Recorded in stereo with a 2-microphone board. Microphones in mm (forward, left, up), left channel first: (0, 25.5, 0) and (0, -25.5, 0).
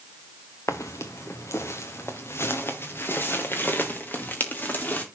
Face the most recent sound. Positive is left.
turn(degrees=35)  # may be behind; listen again after turning